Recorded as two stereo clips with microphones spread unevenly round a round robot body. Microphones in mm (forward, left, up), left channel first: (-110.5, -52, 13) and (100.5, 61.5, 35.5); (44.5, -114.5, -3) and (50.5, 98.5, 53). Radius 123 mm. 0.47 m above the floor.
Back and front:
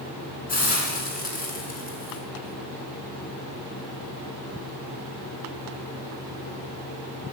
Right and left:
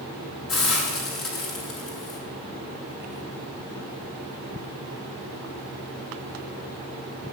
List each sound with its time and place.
0.5 s a hiss: 95° right, 6 m